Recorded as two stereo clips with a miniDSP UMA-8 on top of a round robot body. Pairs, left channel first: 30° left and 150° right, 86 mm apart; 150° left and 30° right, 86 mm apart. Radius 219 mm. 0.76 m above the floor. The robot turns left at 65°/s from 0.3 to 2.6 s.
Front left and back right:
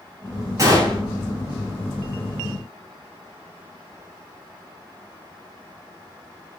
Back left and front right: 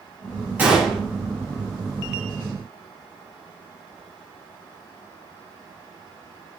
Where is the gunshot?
100° right, 5.5 m; by 1.0 s 130° right, 5.5 m.